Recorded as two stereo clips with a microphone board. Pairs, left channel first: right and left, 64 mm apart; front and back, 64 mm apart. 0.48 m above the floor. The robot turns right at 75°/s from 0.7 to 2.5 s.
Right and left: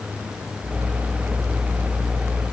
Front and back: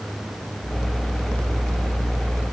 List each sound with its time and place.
Only background noise.